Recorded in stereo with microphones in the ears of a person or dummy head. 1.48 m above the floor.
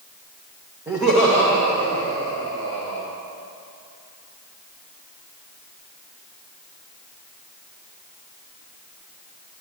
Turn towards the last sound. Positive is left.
turn(degrees=20)  # may be behind; listen again after turning